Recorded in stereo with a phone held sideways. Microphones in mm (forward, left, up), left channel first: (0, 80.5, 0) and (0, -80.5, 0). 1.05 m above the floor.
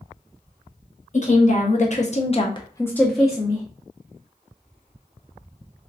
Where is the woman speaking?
50° left (ahead or behind), 1.1 m; by 3.6 s 15° right (ahead or behind), 0.7 m.